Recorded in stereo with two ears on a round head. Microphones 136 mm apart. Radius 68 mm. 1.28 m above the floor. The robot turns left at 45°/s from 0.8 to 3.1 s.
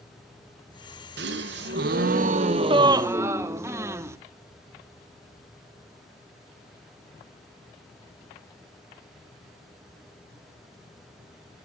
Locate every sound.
1.2 s a gasp: 75° right, 0.8 m; by 4.2 s 160° right, 0.8 m